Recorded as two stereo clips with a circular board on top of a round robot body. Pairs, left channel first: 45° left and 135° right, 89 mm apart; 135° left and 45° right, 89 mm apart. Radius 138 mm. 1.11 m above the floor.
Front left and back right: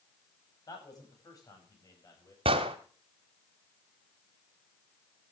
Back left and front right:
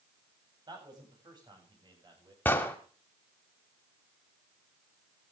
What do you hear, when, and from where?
0.7 s a man speaking: 5° right, 9.5 m
2.5 s an explosion: 155° right, 1.3 m